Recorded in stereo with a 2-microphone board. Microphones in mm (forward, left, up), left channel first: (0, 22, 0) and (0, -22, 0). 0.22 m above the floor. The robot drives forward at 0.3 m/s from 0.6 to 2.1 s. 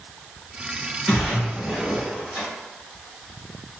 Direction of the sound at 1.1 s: 5° left (ahead or behind).